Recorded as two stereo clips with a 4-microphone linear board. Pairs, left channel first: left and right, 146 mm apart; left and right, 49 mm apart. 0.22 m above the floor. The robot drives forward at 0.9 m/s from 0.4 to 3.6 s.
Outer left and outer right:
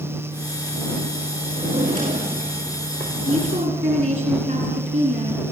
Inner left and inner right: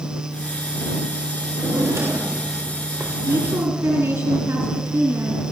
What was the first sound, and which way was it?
A drawer, 65° right (ahead or behind).